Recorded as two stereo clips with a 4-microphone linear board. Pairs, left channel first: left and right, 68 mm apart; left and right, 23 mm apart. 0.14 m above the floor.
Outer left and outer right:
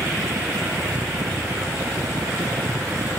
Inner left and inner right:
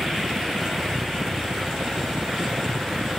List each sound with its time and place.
0.0 s a helicopter: 70° right (ahead or behind)